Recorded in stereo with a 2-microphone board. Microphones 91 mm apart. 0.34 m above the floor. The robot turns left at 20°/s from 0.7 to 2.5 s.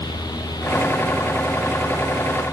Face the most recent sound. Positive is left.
No sound to turn to.